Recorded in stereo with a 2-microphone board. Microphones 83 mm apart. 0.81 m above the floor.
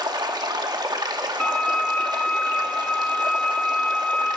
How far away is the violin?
About 0.6 m.